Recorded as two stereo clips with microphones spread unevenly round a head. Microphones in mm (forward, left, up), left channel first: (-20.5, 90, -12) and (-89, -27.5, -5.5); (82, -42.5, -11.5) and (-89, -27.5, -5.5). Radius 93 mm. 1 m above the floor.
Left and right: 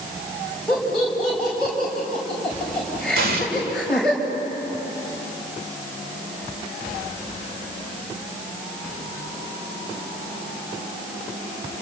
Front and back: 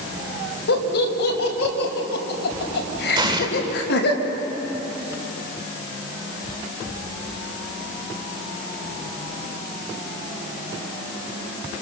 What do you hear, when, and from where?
0.7 s laughter: 30° right, 5 m
3.1 s an explosion: 120° right, 2.5 m